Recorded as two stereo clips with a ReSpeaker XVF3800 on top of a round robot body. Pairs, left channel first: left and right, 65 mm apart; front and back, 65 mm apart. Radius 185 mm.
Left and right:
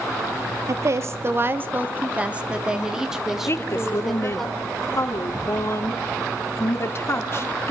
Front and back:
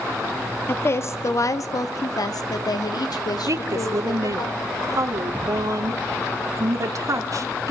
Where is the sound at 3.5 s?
145° left, 3 m.